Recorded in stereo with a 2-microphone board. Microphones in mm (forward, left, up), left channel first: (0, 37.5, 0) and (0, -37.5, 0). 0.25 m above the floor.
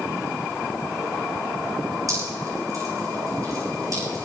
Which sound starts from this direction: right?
Dripping, at 2.1 s.